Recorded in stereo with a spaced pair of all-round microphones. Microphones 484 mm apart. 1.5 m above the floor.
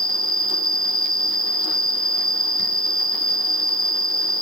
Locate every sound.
0.0 s an insect: centre (ahead or behind), 1.4 m